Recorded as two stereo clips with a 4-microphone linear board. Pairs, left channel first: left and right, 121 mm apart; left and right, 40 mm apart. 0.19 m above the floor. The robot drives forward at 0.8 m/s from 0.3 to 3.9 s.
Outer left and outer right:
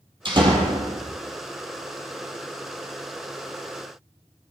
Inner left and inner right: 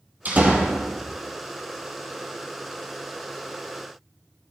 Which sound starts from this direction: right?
A door slam, at 0.2 s.